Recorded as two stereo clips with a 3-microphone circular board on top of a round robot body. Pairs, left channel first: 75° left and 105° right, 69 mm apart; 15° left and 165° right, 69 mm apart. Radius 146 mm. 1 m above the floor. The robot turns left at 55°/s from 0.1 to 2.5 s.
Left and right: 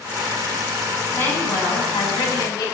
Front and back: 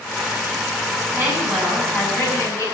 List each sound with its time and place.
1.1 s a woman speaking: 140° left, 10 m; by 2.6 s 65° left, 10 m